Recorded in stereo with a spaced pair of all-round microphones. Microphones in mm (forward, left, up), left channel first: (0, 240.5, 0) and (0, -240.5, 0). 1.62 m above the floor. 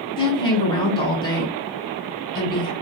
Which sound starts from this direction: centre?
A woman speaking, at 0.2 s.